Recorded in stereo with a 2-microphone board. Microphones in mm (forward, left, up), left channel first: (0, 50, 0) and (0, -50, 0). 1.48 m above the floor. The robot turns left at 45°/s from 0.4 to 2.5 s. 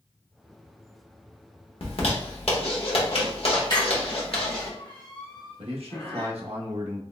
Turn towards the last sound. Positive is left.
turn(degrees=-80)